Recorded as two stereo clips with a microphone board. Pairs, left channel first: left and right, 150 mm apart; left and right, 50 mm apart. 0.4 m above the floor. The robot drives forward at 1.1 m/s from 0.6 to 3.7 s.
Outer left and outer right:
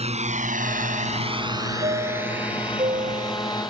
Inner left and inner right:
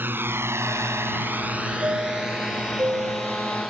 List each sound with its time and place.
0.0 s a drone: 45° right (ahead or behind); by 3.7 s centre (ahead or behind)
1.8 s a chime: 45° right (ahead or behind)